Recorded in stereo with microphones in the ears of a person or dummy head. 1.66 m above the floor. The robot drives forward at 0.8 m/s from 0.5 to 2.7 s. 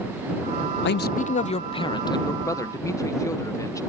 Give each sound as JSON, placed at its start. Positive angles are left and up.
{"t": 0.8, "sound": "a man speaking", "side_deg": 60}